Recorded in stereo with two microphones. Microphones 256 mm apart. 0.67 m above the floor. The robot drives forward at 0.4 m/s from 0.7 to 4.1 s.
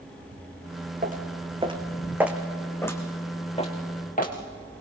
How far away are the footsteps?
About 2.5 m.